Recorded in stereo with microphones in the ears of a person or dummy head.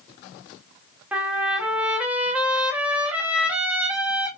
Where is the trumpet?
5° right (ahead or behind), 0.8 m.